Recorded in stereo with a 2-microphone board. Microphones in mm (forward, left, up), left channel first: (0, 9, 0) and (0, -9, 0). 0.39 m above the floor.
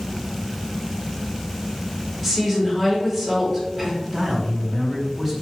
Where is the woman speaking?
5° right (ahead or behind), 1.1 m.